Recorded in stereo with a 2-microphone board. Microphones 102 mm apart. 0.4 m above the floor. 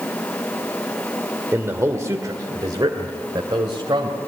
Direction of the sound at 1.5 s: 20° right (ahead or behind).